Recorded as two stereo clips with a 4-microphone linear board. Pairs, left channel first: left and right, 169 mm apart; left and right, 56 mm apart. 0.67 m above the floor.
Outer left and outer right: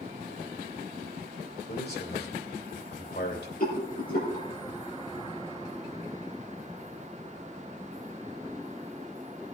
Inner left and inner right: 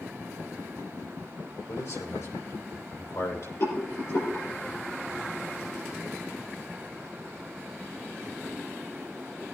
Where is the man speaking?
70° left (ahead or behind), 2.5 m.